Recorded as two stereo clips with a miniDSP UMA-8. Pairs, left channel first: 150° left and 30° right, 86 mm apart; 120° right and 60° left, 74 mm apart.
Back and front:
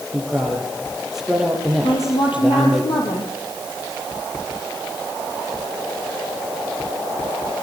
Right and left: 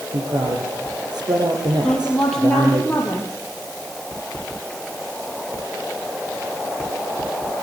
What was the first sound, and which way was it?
A man speaking, 55° left.